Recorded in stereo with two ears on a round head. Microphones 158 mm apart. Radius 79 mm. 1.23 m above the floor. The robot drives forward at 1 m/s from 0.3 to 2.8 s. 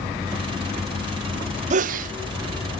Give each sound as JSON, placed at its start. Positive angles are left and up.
{"t": 1.7, "sound": "a sneeze", "side_deg": -40, "distance_m": 0.6}